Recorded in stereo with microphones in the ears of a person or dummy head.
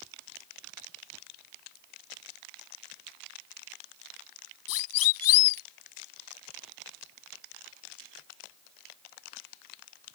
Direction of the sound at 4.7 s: 85° left.